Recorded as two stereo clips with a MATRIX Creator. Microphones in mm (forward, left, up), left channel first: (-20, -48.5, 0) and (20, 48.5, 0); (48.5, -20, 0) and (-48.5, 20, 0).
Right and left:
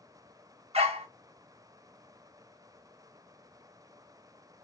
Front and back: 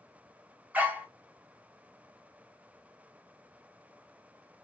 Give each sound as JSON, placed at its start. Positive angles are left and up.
{"t": 0.7, "sound": "a dog barking", "azimuth_deg": 80, "distance_m": 0.9}